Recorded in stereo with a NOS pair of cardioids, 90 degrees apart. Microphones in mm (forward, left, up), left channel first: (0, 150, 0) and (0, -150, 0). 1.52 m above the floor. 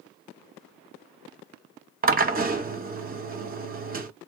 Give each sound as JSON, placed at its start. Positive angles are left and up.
{"t": 2.0, "sound": "a drill", "azimuth_deg": -30, "distance_m": 0.9}